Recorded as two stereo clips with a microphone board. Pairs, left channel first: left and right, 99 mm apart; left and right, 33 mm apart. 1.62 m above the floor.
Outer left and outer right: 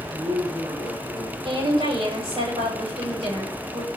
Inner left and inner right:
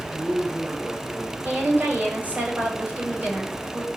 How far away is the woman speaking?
About 8.5 m.